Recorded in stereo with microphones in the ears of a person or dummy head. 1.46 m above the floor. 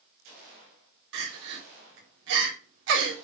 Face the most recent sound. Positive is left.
turn(degrees=-70)  # may be behind; listen again after turning